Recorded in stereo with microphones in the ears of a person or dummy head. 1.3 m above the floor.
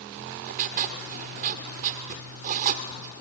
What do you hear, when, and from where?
0.2 s writing: 35° right (ahead or behind), 1.1 m